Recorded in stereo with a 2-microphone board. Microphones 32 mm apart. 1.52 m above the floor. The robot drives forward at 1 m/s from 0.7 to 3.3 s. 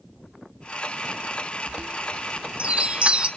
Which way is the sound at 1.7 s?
35° right (ahead or behind).